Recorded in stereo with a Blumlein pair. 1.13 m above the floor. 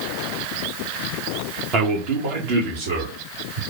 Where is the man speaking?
35° right, 0.9 m; by 3.6 s 55° right, 2.5 m.